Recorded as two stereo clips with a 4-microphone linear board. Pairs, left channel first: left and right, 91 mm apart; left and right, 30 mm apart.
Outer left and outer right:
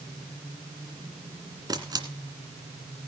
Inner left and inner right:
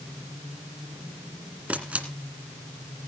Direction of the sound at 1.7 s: 50° right (ahead or behind).